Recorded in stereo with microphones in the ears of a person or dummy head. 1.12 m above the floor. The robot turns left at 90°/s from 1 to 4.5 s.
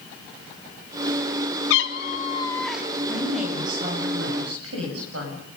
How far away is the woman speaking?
About 6.5 m.